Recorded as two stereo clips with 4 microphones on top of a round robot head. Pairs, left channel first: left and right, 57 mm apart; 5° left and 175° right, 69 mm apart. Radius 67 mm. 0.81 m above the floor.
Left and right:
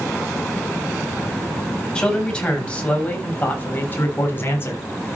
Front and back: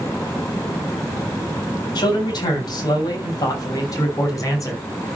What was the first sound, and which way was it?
A man speaking, 15° left.